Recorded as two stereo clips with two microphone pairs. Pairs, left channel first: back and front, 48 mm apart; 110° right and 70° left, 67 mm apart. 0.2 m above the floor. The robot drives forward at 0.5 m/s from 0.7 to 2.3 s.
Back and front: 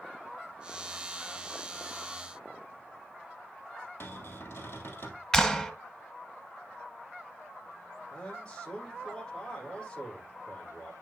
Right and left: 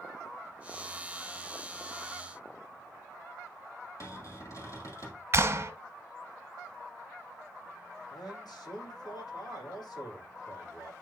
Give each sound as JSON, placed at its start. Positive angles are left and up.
{"t": 4.0, "sound": "a cupboard door", "azimuth_deg": -145, "distance_m": 3.0}
{"t": 5.3, "sound": "a clap", "azimuth_deg": 105, "distance_m": 1.3}
{"t": 8.1, "sound": "a man speaking", "azimuth_deg": -110, "distance_m": 7.5}